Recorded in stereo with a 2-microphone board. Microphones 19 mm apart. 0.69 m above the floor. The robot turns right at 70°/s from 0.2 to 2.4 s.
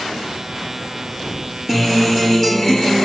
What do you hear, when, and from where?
1.7 s a guitar: 10° right, 1.3 m; by 3.0 s 40° left, 1.3 m